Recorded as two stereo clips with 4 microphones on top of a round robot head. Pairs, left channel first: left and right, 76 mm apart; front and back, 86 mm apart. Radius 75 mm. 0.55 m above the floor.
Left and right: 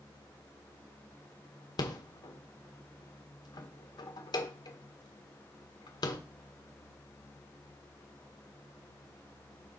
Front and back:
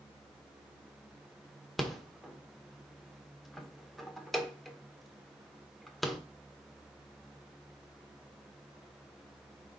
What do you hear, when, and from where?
1.8 s a rattle: 85° left, 1.4 m